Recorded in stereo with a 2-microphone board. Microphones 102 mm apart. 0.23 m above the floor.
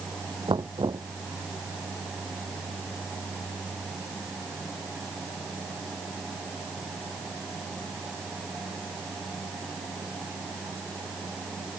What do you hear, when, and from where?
0.5 s knocking: 50° right (ahead or behind)